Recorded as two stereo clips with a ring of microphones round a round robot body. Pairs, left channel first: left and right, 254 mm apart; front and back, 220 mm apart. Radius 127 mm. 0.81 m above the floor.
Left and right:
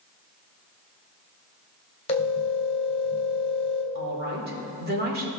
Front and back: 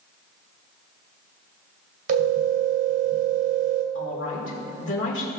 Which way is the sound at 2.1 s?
155° left.